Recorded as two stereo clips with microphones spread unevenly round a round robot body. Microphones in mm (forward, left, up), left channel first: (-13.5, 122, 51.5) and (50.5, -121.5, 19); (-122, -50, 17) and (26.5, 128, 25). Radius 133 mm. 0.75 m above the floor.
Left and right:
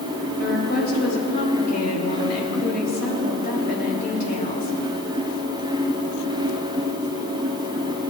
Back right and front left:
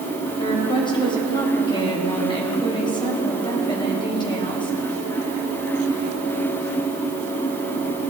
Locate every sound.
0.4 s a woman speaking: 160° left, 4 m